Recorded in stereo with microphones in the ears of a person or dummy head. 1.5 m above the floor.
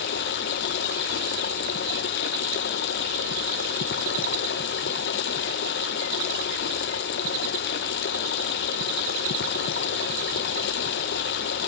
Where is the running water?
45° left (ahead or behind), 0.7 m.